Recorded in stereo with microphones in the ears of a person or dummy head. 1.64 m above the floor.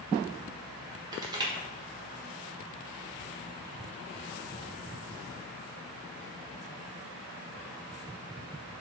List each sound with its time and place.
1.1 s crushing: 25° right (ahead or behind), 2 m